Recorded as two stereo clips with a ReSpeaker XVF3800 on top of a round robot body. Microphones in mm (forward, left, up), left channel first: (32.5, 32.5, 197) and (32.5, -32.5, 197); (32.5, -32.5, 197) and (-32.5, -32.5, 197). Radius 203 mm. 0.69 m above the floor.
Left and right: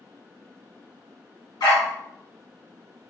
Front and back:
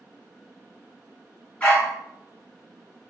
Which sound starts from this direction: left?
A dog barking, at 1.6 s.